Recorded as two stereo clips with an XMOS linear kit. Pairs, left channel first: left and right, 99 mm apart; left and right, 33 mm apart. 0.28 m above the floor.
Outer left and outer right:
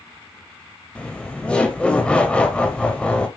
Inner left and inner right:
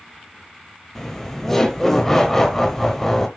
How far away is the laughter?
About 1.0 m.